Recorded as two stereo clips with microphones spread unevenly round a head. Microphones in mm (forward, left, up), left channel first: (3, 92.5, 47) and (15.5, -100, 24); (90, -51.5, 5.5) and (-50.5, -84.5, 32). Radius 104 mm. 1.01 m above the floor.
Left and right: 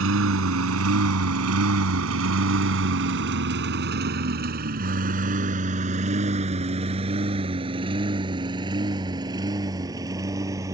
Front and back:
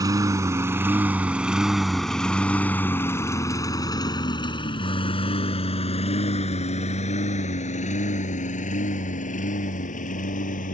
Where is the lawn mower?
105° right; by 10.7 s 10° right.